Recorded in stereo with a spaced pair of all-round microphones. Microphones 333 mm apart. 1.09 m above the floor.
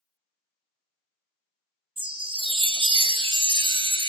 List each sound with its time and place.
2.0 s a chime: 15° right (ahead or behind), 0.5 m